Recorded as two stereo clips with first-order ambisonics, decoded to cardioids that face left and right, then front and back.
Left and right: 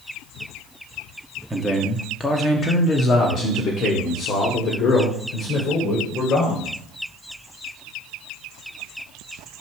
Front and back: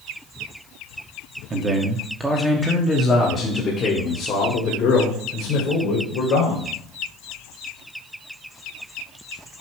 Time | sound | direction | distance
1.5 | a man speaking | 165° right | 1.0 m